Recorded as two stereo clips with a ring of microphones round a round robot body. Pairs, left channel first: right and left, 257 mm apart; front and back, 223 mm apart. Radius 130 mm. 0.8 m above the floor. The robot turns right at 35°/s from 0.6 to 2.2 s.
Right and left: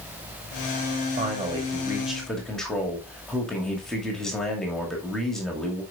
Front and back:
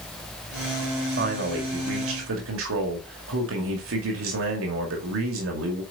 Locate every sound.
1.2 s a man speaking: 145° left, 2 m; by 5.8 s straight behind, 2 m